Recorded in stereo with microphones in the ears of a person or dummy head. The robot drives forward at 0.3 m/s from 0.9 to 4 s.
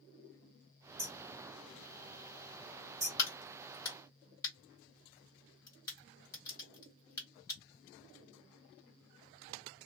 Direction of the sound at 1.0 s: 15° right (ahead or behind).